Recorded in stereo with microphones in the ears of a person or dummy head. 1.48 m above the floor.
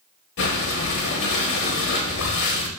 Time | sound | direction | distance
0.4 | breathing | 50° left (ahead or behind) | 0.8 m